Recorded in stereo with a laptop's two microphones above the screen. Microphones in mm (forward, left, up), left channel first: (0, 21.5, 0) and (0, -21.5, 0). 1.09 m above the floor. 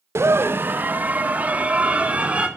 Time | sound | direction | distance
0.1 | a scream | 75° right (ahead or behind) | 0.5 m